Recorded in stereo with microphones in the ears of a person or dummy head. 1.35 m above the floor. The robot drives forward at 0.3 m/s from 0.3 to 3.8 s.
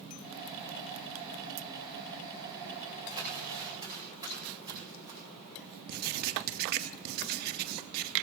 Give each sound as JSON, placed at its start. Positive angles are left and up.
{"t": 3.1, "sound": "crumpling", "side_deg": -25, "distance_m": 4.0}
{"t": 5.9, "sound": "writing", "side_deg": -50, "distance_m": 0.8}